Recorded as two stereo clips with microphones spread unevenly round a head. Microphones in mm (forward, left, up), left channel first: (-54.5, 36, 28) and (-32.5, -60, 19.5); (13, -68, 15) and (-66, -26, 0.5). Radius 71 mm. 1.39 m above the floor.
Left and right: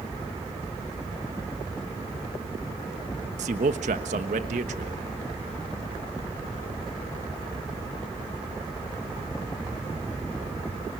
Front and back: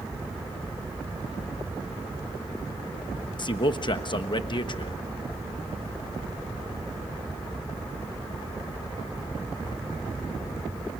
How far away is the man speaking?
About 1.3 m.